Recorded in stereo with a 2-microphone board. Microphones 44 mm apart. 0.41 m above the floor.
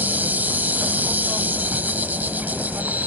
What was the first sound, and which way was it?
An insect, 45° right (ahead or behind).